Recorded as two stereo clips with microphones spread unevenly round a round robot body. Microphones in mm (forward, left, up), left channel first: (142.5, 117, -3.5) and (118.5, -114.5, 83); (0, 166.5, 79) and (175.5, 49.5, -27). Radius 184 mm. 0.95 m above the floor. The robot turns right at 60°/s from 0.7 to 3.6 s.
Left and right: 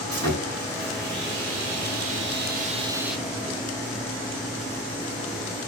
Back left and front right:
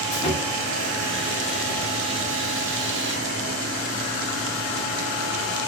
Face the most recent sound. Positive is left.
turn(degrees=20)